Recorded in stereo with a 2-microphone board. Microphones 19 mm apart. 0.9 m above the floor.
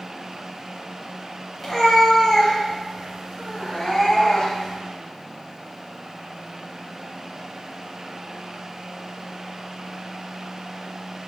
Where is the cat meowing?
5° left (ahead or behind), 2.5 m; by 4.8 s 40° left (ahead or behind), 3 m.